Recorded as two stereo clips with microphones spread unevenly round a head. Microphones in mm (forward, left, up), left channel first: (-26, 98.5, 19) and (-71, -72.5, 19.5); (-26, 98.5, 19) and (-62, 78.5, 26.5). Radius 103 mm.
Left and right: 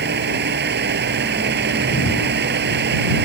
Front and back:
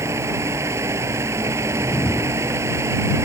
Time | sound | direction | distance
0.0 | a fan | 135° right | ?
1.7 | a whoosh | 40° left | ?